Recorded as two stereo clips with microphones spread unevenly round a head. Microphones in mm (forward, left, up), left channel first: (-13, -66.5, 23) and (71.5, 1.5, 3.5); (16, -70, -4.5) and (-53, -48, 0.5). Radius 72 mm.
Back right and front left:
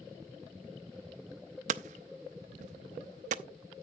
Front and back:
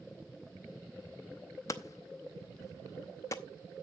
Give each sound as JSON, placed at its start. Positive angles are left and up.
{"t": 1.7, "sound": "hammering", "azimuth_deg": 40, "distance_m": 0.5}